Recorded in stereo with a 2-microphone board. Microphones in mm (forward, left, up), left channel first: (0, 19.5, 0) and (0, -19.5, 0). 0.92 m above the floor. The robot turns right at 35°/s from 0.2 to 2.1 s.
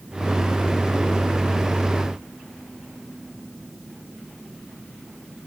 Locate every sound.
Only background noise.